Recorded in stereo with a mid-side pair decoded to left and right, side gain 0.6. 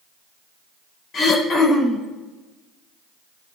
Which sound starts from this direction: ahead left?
Throat clearing, at 1.1 s.